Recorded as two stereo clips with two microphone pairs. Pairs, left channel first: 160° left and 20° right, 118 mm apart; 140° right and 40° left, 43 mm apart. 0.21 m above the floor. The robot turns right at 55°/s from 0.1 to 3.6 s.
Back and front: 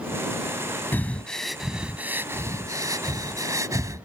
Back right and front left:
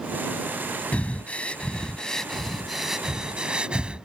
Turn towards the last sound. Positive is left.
turn(degrees=0)